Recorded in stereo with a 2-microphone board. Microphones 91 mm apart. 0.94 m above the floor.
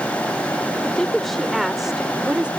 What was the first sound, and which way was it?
A woman speaking, 10° left (ahead or behind).